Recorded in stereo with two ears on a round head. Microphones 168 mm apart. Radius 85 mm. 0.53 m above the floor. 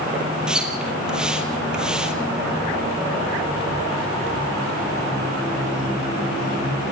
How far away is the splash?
About 2.5 m.